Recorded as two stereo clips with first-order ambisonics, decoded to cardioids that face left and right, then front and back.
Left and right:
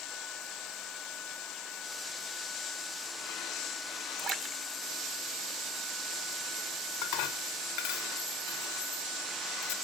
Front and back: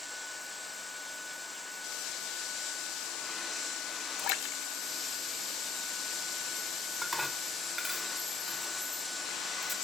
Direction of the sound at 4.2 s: 25° right.